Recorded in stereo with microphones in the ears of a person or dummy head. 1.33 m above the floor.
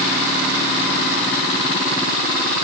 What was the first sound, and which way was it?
Only background noise.